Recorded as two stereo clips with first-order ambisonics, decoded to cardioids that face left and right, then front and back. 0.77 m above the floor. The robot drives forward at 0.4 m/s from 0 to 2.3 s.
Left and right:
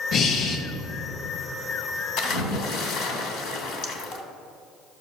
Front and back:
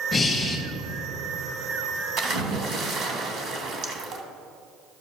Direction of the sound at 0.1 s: 65° left.